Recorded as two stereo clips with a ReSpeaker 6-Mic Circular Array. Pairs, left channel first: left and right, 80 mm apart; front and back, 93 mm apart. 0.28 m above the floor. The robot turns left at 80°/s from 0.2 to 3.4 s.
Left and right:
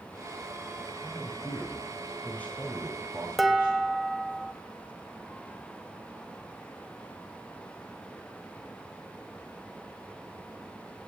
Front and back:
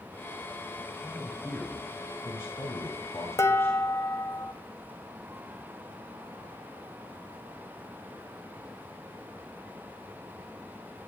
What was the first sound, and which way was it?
A man speaking, 145° left.